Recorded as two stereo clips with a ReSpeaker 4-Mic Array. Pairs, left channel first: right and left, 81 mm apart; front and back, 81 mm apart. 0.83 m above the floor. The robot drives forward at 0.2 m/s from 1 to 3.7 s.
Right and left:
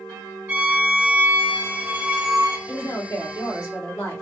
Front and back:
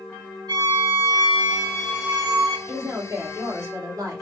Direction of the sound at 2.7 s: 135° right.